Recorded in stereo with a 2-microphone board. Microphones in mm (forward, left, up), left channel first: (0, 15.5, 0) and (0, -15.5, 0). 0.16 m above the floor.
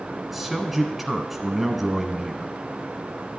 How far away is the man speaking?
About 1.1 m.